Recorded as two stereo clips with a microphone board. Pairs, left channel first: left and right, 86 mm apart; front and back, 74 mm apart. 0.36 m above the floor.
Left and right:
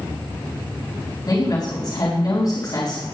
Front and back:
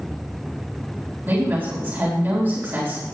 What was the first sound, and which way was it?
A woman speaking, 120° left.